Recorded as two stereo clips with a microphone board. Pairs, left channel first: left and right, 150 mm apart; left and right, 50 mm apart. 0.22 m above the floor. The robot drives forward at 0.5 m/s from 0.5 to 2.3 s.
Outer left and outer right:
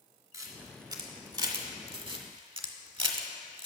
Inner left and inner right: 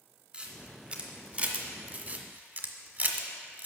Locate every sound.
0.3 s a camera shutter: 25° right (ahead or behind), 1.5 m; by 3.7 s 40° right (ahead or behind), 1.0 m